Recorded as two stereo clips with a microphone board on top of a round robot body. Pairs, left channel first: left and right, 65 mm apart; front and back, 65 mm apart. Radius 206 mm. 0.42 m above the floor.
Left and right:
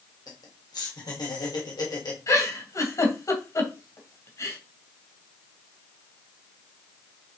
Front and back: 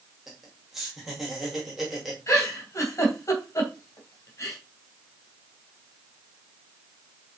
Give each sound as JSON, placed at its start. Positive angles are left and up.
{"t": 0.3, "sound": "laughter", "azimuth_deg": 95, "distance_m": 3.0}
{"t": 2.3, "sound": "a giggle", "azimuth_deg": 50, "distance_m": 3.0}